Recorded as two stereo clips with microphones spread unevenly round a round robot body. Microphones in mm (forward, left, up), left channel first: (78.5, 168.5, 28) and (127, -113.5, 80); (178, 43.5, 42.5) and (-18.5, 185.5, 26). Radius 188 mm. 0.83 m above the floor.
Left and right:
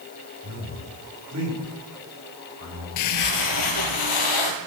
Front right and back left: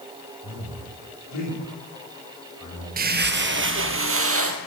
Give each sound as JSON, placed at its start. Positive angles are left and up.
{"t": 0.4, "sound": "a man speaking", "azimuth_deg": -45, "distance_m": 8.0}
{"t": 3.0, "sound": "footsteps", "azimuth_deg": 105, "distance_m": 1.0}